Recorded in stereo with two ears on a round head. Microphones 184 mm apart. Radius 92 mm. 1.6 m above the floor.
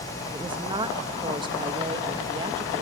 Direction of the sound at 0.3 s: 25° right (ahead or behind).